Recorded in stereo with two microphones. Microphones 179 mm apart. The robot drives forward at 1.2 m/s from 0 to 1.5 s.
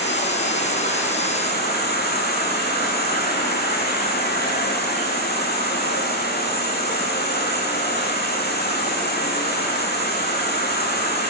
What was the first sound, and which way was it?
An insect, 70° left (ahead or behind).